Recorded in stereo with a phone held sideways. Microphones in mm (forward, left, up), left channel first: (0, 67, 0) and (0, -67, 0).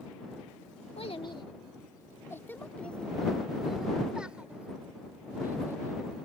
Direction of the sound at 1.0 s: 45° left (ahead or behind).